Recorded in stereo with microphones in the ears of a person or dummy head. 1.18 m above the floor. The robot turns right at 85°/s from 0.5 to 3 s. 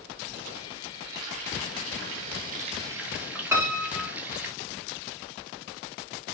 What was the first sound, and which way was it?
Frying, straight behind.